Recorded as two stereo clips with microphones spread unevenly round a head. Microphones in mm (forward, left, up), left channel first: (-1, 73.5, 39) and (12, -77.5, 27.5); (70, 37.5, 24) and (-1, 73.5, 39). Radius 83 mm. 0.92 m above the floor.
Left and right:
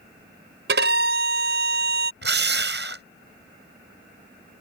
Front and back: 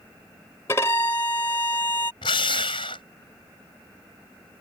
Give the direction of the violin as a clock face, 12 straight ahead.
3 o'clock.